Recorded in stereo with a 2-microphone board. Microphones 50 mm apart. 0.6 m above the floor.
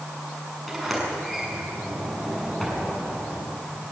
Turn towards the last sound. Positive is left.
turn(degrees=0)  # may be behind; listen again after turning